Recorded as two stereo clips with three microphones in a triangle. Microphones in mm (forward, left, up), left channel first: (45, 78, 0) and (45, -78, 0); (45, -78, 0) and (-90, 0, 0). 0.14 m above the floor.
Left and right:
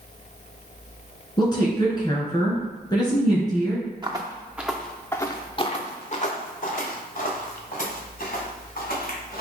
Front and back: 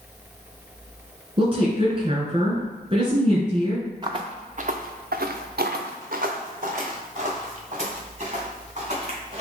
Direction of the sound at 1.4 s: 130° left.